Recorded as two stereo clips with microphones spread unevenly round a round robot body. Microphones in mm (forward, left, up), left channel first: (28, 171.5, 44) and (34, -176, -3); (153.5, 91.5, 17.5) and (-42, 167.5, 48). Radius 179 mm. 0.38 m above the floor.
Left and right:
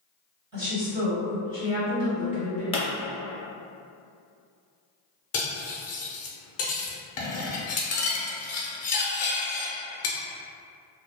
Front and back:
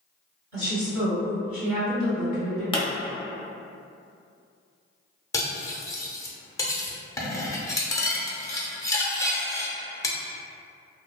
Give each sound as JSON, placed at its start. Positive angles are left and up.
{"t": 0.5, "sound": "a woman speaking", "azimuth_deg": -155, "distance_m": 1.9}
{"t": 2.7, "sound": "a pop", "azimuth_deg": 15, "distance_m": 0.8}
{"t": 5.3, "sound": "cutlery clinking", "azimuth_deg": 45, "distance_m": 0.6}